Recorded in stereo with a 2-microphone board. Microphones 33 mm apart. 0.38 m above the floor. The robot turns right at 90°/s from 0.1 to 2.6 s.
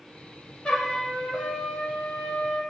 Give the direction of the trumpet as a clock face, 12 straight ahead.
7 o'clock.